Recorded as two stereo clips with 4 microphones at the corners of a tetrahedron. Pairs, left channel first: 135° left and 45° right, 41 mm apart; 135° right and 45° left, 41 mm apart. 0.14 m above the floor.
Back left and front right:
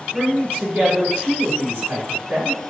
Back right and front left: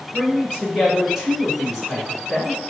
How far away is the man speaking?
About 1.7 m.